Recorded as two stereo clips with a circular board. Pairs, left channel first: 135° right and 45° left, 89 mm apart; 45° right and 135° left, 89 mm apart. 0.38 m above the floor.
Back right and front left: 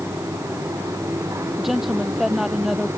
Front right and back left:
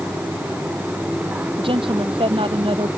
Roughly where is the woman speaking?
Behind left.